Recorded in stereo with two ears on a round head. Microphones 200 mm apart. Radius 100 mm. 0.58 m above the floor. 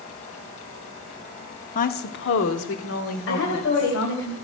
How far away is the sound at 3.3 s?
About 2.5 m.